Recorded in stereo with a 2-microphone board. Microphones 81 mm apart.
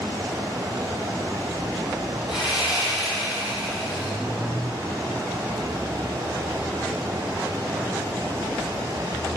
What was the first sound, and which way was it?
Sawing, 10° right (ahead or behind).